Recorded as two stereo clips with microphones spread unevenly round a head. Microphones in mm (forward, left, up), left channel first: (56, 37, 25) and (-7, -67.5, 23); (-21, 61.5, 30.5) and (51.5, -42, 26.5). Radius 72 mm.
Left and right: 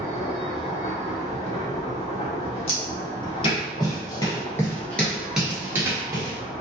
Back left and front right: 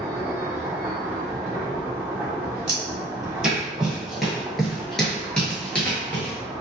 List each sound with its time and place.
0.0 s a machine running: 20° left, 1.5 m
2.7 s footsteps: 30° left, 1.9 m; by 6.4 s 160° right, 1.3 m